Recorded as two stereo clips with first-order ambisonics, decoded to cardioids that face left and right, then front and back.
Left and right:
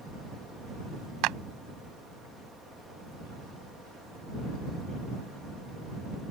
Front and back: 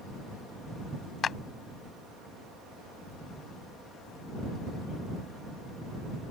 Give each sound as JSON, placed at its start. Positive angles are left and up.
{"t": 1.2, "sound": "a clap", "azimuth_deg": -60}